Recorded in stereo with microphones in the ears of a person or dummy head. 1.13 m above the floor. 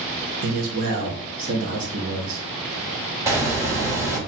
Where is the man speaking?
45° right (ahead or behind), 1.0 m.